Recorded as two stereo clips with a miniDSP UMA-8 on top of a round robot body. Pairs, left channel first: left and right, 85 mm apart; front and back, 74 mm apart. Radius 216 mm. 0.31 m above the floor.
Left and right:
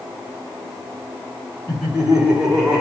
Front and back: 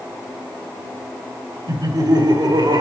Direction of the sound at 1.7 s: 170° right.